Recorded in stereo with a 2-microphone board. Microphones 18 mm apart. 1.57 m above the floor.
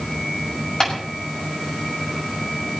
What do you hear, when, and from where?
0.8 s tapping: 40° left (ahead or behind), 6.5 m